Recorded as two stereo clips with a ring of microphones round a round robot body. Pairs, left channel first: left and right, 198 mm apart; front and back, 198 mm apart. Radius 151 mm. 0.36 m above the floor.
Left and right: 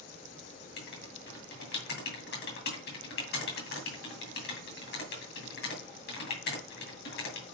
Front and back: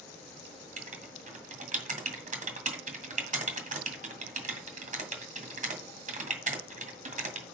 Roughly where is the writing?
Behind left.